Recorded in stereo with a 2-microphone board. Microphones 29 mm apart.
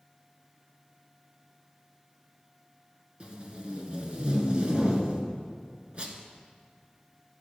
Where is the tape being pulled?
30° right (ahead or behind), 1.5 m.